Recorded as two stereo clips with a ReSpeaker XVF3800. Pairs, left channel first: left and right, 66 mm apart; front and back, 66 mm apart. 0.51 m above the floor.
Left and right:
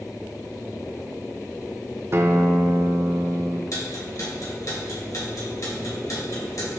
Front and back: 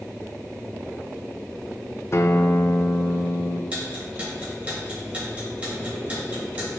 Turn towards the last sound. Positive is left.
turn(degrees=110)